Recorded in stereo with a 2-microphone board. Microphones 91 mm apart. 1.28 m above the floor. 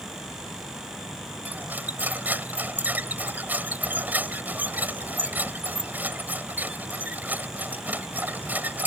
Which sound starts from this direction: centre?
Cutlery clinking, at 1.4 s.